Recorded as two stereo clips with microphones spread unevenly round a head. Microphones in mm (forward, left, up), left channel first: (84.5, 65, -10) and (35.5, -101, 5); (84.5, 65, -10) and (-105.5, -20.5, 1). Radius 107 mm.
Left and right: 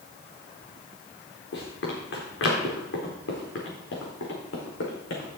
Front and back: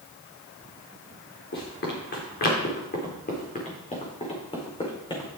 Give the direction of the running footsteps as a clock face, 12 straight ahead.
10 o'clock.